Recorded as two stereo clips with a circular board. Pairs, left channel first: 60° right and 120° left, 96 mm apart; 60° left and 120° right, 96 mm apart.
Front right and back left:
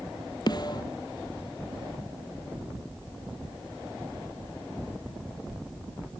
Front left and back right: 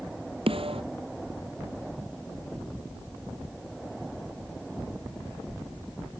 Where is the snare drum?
105° right.